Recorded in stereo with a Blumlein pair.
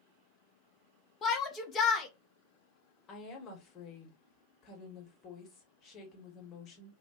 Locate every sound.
1.2 s a shout: 20° left, 0.9 m
3.1 s a woman speaking: 30° left, 1.3 m